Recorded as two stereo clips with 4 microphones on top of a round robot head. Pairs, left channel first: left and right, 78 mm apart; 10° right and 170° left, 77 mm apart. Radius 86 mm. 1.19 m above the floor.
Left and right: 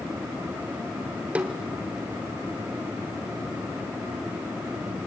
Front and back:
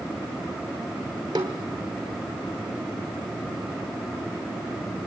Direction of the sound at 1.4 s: 150° right.